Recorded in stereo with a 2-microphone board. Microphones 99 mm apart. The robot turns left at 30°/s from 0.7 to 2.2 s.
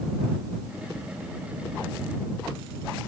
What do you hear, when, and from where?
Only background noise.